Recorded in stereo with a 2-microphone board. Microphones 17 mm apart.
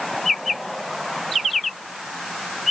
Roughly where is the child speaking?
No child speaking in this recording.